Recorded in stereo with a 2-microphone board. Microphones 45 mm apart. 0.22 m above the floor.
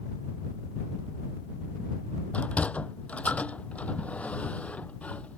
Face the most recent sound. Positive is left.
turn(degrees=30)  # may be behind; listen again after turning